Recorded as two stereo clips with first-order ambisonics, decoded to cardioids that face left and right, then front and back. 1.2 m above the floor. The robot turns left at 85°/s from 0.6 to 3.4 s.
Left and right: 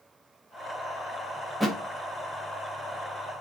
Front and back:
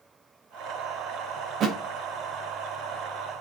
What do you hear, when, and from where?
1.6 s a thud: 170° right, 0.7 m; by 1.8 s 175° left, 0.7 m